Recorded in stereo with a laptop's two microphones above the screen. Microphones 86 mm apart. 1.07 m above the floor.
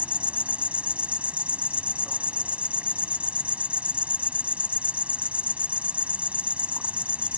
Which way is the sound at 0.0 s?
15° right (ahead or behind).